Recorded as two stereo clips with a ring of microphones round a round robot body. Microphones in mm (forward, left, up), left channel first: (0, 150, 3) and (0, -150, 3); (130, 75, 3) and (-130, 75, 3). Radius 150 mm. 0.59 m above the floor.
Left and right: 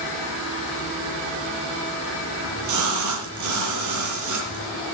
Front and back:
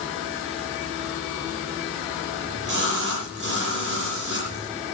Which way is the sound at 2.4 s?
120° right.